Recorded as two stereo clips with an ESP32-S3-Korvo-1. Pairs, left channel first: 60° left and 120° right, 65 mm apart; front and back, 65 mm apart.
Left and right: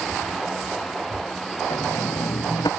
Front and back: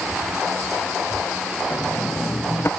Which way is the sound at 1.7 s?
55° left.